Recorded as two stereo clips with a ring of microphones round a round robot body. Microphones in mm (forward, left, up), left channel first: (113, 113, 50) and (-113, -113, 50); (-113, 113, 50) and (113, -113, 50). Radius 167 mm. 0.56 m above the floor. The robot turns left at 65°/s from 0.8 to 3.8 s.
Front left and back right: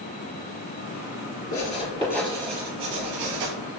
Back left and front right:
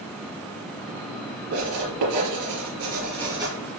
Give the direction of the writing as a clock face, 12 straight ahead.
12 o'clock.